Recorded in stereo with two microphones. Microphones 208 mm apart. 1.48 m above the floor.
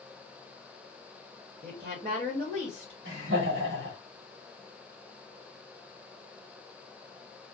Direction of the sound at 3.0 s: 70° right (ahead or behind).